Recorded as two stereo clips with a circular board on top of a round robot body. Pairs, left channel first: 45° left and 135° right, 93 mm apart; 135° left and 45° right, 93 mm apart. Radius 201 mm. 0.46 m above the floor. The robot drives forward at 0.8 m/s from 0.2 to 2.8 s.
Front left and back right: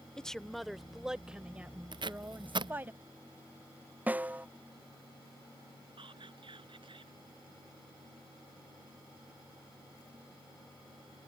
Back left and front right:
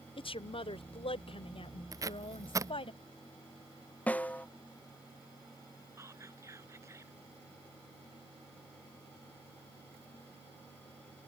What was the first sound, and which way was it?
A woman speaking, 130° left.